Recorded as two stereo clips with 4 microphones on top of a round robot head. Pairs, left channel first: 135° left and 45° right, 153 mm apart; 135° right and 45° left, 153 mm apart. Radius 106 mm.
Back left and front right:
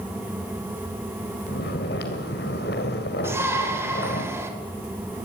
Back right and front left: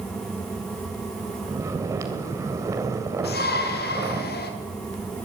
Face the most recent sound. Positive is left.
turn(degrees=-120)